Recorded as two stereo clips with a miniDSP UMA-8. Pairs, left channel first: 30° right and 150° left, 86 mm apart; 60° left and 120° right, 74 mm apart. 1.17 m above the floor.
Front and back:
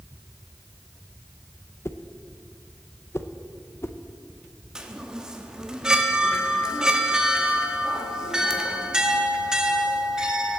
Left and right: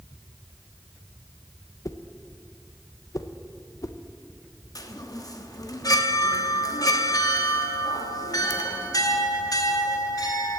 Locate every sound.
1.9 s a whoosh: 25° left, 0.5 m
4.8 s a chime: 70° left, 0.9 m